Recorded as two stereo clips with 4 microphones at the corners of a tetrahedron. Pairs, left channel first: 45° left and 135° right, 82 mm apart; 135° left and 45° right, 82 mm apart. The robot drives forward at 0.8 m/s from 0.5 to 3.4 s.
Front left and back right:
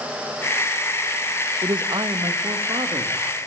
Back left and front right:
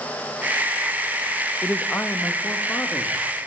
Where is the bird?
I don't hear a bird.